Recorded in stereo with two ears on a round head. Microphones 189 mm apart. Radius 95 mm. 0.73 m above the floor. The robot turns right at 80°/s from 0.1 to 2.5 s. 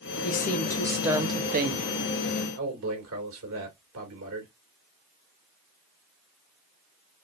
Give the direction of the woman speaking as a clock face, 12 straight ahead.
8 o'clock.